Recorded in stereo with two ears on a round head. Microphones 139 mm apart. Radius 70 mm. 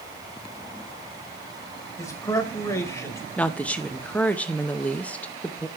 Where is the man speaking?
20° left (ahead or behind), 1.0 m.